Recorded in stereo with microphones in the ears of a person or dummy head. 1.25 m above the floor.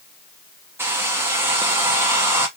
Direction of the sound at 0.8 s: 10° right (ahead or behind).